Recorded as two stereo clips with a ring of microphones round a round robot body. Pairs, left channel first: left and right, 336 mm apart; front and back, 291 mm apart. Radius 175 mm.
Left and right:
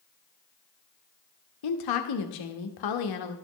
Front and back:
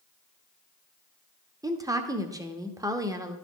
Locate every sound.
1.6 s a woman speaking: 100° left, 1.2 m